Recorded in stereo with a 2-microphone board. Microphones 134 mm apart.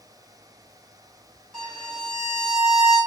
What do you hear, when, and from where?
1.5 s a violin: 5° left (ahead or behind), 2 m